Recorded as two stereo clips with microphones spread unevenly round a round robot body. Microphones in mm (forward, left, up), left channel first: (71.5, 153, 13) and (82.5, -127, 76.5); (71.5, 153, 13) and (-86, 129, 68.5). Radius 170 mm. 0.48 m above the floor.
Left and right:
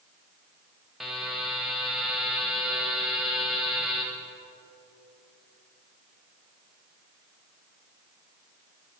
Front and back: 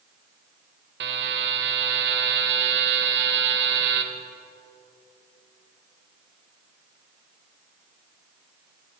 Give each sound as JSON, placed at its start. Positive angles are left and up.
{"t": 1.0, "sound": "a buzzer", "azimuth_deg": 180, "distance_m": 0.8}